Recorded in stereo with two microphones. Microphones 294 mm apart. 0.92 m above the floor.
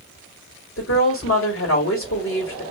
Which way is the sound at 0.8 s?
50° left (ahead or behind).